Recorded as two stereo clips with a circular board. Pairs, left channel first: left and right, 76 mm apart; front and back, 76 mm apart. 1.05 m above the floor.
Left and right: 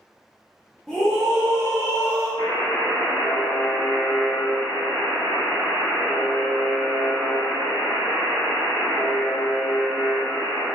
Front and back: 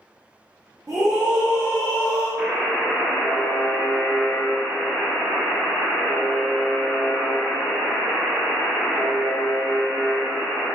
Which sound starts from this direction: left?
A buzzer, at 2.4 s.